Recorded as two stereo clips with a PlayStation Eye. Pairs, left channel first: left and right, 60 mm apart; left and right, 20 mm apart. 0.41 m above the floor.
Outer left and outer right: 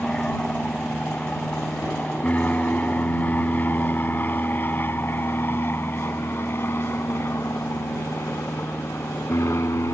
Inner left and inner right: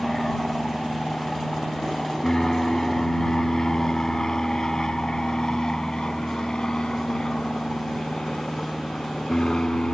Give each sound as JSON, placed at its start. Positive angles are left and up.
{"t": 0.0, "sound": "an aircraft", "side_deg": 15}